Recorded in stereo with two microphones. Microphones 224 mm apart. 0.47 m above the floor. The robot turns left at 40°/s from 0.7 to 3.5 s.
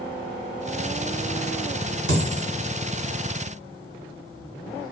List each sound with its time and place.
2.1 s a dropped coin: 80° right, 1.4 m; by 2.4 s 70° right (ahead or behind), 1.4 m